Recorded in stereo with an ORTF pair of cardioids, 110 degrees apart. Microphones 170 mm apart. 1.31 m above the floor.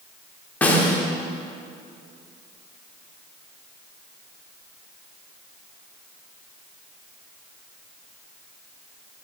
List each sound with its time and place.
0.6 s a snare drum: 10° left, 2.0 m